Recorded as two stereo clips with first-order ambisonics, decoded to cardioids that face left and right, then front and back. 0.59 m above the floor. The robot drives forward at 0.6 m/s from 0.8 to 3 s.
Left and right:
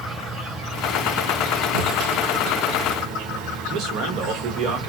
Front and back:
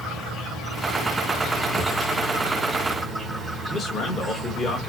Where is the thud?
105° right, 0.7 m; by 2.0 s 120° right, 0.7 m.